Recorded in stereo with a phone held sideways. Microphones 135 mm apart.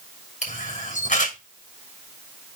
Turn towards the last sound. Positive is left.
turn(degrees=60)  # may be behind; listen again after turning